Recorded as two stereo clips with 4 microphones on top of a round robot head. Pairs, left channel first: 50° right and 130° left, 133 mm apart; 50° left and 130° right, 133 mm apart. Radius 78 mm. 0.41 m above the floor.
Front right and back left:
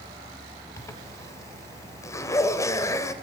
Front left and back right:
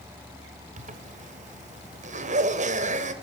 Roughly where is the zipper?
Behind right.